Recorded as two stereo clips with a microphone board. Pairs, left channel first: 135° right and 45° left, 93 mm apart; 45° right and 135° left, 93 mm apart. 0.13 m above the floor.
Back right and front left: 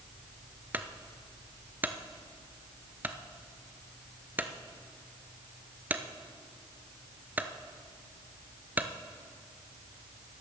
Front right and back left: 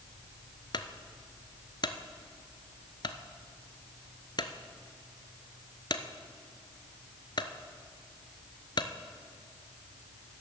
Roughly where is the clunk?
Ahead.